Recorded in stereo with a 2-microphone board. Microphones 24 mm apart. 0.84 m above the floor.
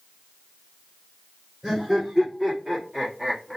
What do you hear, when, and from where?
1.6 s laughter: 25° right (ahead or behind), 2.0 m; by 3.6 s 15° right (ahead or behind), 0.9 m